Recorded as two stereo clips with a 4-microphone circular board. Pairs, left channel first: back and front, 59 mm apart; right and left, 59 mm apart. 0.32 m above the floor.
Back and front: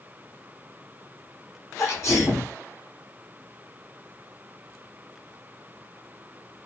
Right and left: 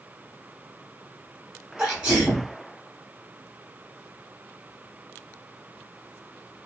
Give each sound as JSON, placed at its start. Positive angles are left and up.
{"t": 1.8, "sound": "a sneeze", "azimuth_deg": 165, "distance_m": 1.9}